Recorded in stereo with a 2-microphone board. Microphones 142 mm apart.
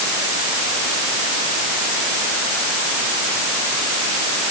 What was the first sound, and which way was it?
Only background noise.